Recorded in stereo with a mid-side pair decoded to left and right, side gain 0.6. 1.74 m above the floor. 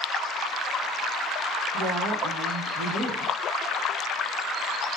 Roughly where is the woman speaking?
Ahead right.